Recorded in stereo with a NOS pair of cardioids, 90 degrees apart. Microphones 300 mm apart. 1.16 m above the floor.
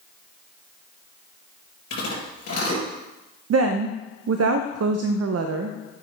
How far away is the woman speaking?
About 0.6 m.